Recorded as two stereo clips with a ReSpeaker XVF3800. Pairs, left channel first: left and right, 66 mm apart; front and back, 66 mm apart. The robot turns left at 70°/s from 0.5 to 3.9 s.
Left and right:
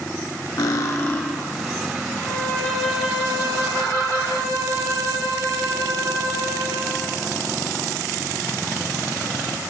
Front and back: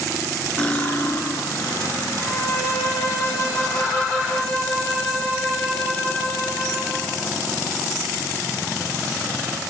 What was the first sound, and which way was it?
Cutlery clinking, 75° left.